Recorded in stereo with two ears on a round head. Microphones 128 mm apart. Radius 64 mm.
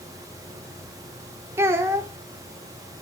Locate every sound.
1.6 s a child speaking: 20° right (ahead or behind), 1.1 m